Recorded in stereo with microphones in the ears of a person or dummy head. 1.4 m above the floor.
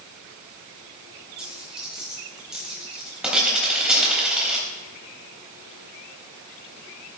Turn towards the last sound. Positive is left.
turn(degrees=-5)  # may be behind; listen again after turning